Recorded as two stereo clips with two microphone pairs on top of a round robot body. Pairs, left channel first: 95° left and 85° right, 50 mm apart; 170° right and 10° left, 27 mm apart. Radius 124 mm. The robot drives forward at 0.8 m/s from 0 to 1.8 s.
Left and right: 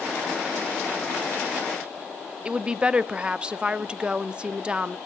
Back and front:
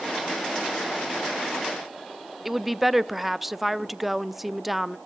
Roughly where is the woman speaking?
Right.